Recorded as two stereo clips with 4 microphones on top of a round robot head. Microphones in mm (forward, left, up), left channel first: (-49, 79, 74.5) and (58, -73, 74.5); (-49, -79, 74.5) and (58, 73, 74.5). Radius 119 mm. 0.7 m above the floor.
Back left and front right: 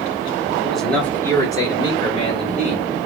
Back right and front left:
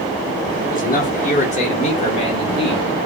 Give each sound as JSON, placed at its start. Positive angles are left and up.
{"t": 0.6, "sound": "a man speaking", "azimuth_deg": -145, "distance_m": 1.3}